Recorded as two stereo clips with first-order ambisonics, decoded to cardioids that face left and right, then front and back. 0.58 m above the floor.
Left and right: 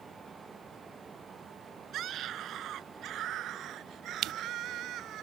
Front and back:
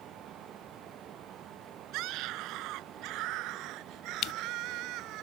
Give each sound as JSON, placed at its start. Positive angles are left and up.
{"t": 1.9, "sound": "a scream", "azimuth_deg": -145}
{"t": 4.2, "sound": "crushing", "azimuth_deg": -45}